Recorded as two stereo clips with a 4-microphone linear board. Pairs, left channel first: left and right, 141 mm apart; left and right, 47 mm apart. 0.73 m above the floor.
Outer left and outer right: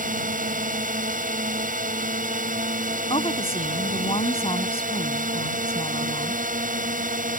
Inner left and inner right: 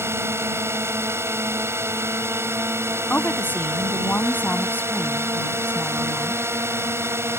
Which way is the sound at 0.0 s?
70° right (ahead or behind).